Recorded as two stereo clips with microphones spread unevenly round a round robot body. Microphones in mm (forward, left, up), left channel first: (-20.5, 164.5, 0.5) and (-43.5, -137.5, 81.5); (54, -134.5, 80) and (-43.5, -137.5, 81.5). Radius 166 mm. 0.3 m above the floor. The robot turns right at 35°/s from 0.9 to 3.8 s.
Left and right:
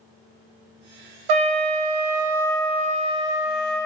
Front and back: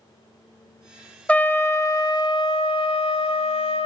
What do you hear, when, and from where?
1.3 s a trumpet: 80° right, 0.5 m; by 3.9 s 10° left, 0.5 m